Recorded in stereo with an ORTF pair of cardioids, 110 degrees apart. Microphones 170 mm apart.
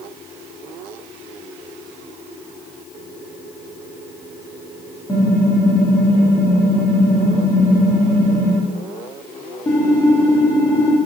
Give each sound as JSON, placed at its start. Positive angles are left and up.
{"t": 5.1, "sound": "typing on a keyboard", "azimuth_deg": 20, "distance_m": 1.9}